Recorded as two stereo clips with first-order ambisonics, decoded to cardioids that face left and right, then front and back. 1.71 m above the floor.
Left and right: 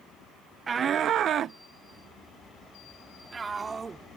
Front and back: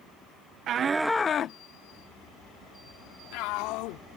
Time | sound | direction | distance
0.7 | a shout | 150° right | ?